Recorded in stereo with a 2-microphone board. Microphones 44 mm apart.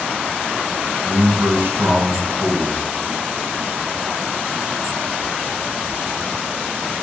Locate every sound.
1.0 s a man speaking: 60° right (ahead or behind), 2.5 m